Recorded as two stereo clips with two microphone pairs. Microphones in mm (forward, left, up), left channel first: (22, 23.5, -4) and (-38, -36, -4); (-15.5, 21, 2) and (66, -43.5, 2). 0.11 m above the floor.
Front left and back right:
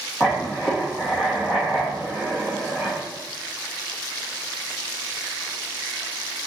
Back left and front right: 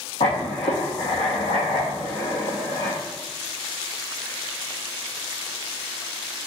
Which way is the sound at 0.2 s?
140° left.